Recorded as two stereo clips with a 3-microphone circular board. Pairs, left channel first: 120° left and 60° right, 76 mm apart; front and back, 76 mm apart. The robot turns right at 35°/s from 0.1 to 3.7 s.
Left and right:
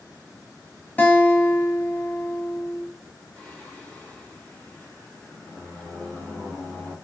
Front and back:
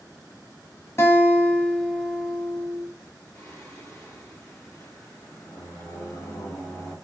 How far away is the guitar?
About 0.7 m.